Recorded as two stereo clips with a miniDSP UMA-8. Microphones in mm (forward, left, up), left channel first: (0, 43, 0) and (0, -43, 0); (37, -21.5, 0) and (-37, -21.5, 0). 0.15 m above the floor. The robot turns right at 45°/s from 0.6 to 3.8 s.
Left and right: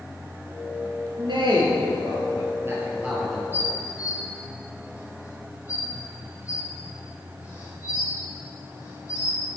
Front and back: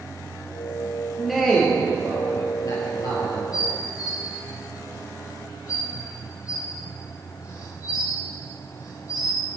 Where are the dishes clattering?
25° left, 3.5 m; by 9.4 s 40° left, 3.5 m.